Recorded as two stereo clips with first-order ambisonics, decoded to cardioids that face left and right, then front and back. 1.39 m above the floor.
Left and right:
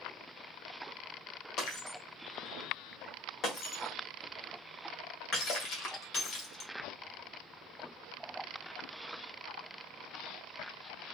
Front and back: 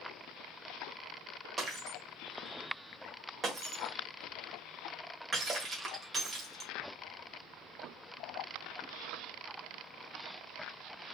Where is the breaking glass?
115° left, 1.4 m.